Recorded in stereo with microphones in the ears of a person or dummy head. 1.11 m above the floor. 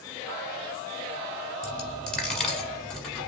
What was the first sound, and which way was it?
A dropped coin, centre (ahead or behind).